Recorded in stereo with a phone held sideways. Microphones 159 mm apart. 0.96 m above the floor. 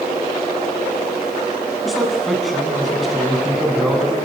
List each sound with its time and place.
1.9 s a man speaking: centre (ahead or behind), 7.5 m